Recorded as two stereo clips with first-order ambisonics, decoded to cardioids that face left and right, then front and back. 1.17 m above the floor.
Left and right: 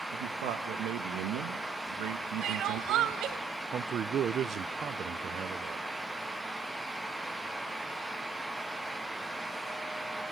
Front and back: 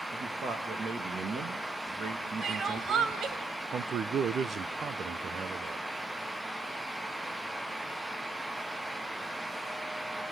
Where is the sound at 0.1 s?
115° right, 1.3 m.